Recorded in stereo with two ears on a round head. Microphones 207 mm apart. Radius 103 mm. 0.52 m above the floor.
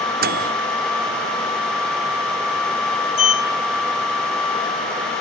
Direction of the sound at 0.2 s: 40° right (ahead or behind).